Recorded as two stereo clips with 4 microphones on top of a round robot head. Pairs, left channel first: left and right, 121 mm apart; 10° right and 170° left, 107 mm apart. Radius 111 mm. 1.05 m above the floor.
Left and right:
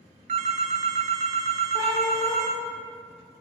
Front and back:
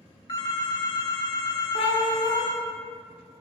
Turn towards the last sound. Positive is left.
turn(degrees=20)